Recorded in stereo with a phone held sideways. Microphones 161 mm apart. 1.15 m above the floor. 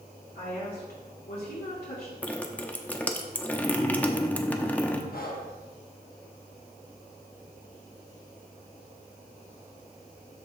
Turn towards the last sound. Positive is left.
turn(degrees=65)  # may be behind; listen again after turning